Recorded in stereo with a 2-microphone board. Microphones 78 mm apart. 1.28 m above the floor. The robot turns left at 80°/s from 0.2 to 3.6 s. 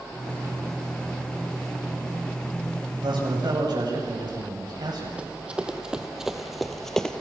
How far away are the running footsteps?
About 2 m.